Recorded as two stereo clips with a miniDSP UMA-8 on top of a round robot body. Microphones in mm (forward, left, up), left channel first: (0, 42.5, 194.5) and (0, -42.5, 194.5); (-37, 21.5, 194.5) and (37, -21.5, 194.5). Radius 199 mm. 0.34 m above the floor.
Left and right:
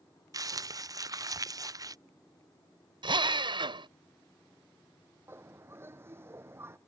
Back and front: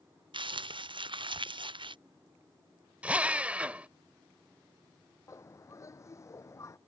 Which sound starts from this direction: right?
A drill, at 3.0 s.